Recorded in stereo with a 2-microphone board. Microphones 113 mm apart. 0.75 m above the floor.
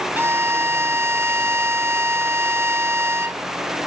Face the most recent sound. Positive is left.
turn(degrees=-20)  # may be behind; listen again after turning